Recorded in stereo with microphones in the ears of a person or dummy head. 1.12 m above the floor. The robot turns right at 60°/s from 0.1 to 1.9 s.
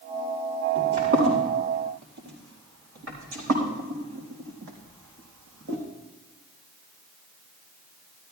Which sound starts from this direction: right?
Footsteps, at 0.8 s.